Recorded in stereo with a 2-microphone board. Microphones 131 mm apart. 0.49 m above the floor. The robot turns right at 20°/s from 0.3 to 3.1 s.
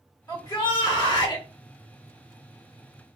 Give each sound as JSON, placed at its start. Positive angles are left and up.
{"t": 0.3, "sound": "a shout", "side_deg": 30, "distance_m": 1.4}